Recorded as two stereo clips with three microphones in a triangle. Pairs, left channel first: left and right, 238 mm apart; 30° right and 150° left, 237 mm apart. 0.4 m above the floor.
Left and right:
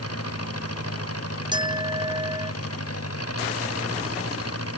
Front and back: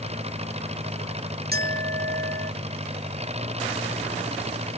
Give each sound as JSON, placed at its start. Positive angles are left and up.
{"t": 0.0, "sound": "an engine running", "azimuth_deg": 85}
{"t": 1.5, "sound": "a clink", "azimuth_deg": -160}